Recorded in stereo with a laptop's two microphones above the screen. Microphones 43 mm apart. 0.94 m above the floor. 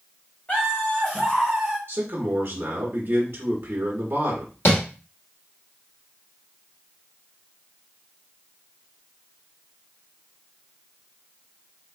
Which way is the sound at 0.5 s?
35° left (ahead or behind).